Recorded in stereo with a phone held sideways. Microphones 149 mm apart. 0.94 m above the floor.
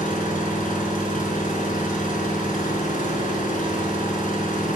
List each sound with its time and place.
0.0 s an engine running: 65° left (ahead or behind), 6 m